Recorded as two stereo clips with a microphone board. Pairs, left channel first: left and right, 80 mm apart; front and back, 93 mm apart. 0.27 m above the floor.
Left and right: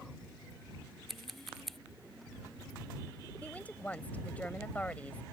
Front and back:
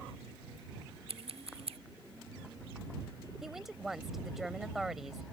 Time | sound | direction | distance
1.1 | scissors | straight behind | ?
3.4 | a woman speaking | 100° left | ?